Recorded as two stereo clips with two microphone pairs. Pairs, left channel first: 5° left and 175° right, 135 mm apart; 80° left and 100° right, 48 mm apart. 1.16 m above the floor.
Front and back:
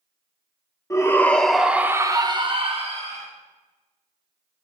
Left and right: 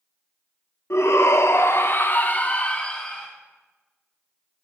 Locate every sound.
0.9 s a shout: 70° left, 1.1 m; by 3.3 s 155° left, 1.4 m